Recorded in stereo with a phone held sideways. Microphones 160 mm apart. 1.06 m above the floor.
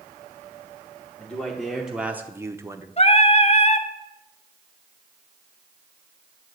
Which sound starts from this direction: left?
Singing, at 3.0 s.